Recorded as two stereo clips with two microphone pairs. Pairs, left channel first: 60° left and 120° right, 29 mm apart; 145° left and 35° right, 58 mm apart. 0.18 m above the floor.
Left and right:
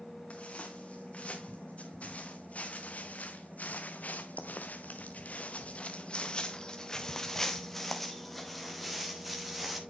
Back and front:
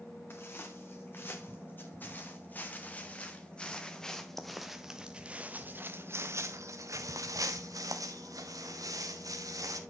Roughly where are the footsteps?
Left.